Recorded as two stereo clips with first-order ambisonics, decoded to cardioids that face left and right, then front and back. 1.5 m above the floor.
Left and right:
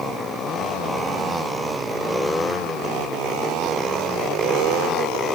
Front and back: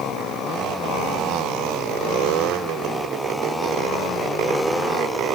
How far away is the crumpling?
I don't hear crumpling.